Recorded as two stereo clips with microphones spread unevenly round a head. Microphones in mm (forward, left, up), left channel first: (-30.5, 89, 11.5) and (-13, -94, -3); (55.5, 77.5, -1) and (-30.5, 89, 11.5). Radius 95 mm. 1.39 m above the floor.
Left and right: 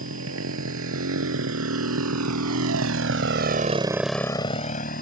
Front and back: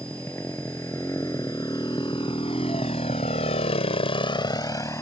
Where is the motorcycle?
90° right; by 5.0 s 50° left.